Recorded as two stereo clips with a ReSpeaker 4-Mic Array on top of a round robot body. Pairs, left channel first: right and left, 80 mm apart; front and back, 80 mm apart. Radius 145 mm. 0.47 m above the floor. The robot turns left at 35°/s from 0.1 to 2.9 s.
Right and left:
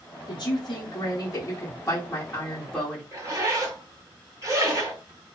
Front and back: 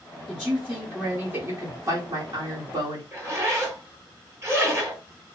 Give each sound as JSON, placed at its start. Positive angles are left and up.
{"t": 0.3, "sound": "a man speaking", "azimuth_deg": -95, "distance_m": 1.3}
{"t": 3.1, "sound": "a zipper", "azimuth_deg": 135, "distance_m": 1.9}